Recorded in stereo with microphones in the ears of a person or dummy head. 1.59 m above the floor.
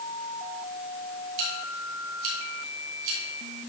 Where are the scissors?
75° right (ahead or behind), 3.5 m.